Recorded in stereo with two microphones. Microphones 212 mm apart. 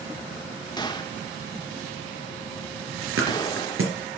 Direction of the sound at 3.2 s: 80° right.